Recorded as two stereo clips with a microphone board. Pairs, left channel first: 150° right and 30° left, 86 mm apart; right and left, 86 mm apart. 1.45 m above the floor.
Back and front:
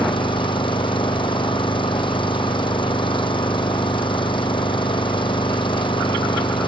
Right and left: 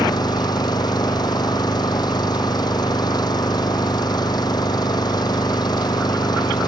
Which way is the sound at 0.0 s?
130° right.